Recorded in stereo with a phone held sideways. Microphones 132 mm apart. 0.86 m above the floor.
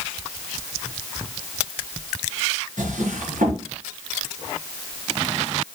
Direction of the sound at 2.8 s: 80° right.